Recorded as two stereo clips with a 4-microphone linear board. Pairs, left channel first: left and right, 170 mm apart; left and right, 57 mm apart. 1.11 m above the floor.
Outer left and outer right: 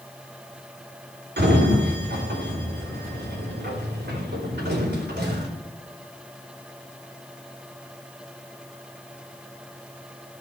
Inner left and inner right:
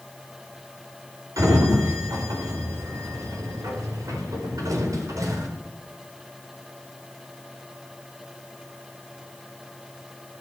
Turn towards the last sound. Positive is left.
turn(degrees=-80)